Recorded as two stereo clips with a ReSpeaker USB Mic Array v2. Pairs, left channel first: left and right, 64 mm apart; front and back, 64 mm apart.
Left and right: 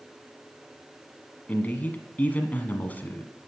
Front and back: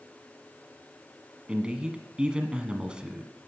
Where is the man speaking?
120° left, 1.2 m.